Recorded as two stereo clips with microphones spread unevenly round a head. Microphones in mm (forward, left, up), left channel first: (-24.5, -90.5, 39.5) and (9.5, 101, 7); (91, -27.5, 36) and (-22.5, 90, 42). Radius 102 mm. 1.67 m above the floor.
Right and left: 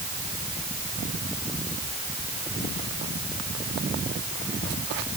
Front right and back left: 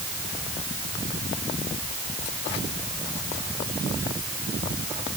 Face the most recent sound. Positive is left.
No sound to turn to.